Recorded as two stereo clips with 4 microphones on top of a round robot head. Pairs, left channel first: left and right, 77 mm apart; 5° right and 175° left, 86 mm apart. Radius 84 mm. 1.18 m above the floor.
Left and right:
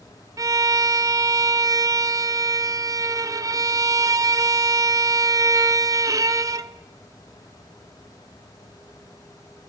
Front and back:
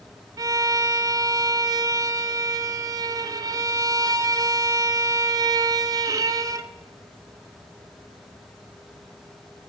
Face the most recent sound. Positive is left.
turn(degrees=-135)